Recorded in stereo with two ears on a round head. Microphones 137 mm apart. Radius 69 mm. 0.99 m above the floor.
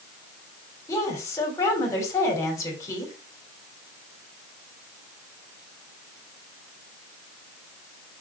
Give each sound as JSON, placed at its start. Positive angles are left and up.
{"t": 0.9, "sound": "a woman speaking", "side_deg": 20, "distance_m": 3.0}